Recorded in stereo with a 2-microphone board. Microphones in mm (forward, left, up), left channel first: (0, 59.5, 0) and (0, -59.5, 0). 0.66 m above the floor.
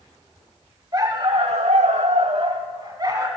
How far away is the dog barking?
About 1.2 m.